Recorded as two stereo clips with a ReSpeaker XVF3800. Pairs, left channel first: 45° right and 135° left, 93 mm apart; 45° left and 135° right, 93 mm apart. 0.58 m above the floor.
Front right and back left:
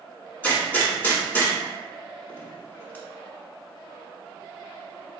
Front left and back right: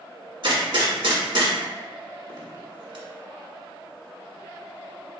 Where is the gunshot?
115° right, 1.2 m.